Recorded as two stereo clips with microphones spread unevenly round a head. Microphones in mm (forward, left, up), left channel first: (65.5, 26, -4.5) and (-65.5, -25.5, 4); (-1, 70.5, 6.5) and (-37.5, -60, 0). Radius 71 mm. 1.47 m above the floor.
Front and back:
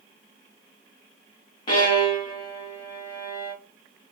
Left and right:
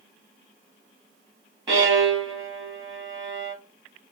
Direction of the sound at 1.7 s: 40° right.